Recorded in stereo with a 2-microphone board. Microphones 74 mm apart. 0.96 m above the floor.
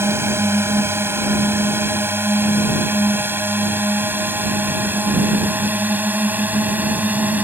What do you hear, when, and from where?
0.0 s a drone: 35° right (ahead or behind); by 7.4 s 20° right (ahead or behind)